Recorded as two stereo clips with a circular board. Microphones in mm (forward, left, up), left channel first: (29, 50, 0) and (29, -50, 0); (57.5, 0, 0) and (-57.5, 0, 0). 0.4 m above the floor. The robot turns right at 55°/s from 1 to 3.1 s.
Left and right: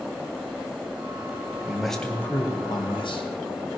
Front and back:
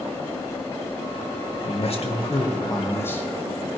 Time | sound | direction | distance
1.6 | a man speaking | 10° right | 2.5 m